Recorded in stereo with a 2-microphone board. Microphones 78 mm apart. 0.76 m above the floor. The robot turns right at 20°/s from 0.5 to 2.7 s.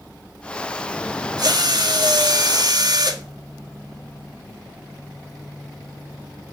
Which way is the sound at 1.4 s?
60° right (ahead or behind).